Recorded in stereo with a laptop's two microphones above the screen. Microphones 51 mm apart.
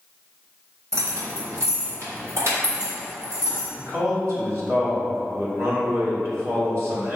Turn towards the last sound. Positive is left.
turn(degrees=-50)  # may be behind; listen again after turning